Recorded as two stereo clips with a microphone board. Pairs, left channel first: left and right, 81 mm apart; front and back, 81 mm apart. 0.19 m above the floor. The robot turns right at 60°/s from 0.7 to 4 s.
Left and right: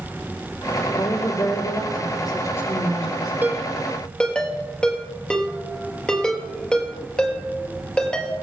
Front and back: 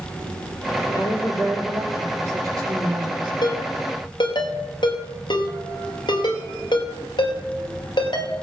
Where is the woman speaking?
40° left, 6 m; by 3.3 s 175° right, 6 m.